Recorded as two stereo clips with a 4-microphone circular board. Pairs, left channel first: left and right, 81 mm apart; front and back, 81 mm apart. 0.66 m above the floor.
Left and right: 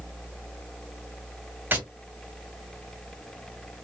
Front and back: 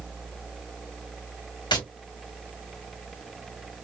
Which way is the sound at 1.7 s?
25° right.